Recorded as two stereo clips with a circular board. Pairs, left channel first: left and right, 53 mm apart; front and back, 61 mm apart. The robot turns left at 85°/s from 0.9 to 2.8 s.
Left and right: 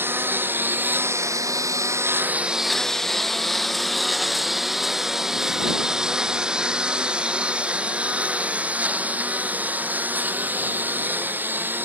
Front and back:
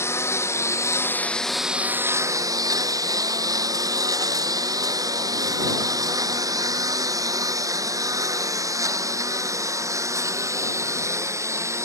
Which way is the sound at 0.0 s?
45° right.